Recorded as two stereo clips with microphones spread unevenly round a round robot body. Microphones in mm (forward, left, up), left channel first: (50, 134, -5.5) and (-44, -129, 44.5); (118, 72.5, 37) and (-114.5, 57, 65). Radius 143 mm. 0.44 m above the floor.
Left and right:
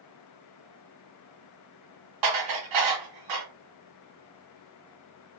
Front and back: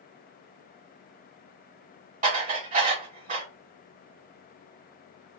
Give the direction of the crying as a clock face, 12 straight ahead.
I don't hear crying.